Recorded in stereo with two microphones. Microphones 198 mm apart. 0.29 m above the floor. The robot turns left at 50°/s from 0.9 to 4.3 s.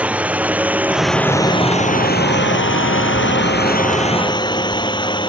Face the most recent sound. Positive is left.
turn(degrees=20)  # may be behind; listen again after turning